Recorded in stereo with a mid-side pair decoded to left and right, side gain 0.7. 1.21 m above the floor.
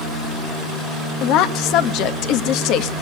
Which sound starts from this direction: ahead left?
A woman speaking, at 1.2 s.